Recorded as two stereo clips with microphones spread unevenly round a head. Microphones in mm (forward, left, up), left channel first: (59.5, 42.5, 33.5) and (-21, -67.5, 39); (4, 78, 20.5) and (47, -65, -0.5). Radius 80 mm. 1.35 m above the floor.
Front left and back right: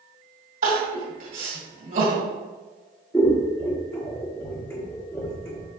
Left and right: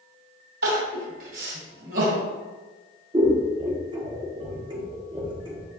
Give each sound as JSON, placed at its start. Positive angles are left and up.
{"t": 0.6, "sound": "crying", "azimuth_deg": -100, "distance_m": 2.0}
{"t": 3.1, "sound": "scissors", "azimuth_deg": -15, "distance_m": 1.1}